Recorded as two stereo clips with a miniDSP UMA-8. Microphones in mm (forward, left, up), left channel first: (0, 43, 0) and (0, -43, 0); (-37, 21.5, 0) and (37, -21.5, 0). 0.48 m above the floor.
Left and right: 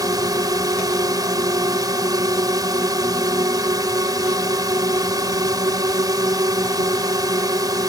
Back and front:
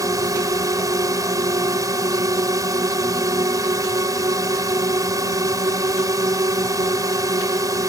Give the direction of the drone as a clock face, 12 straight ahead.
2 o'clock.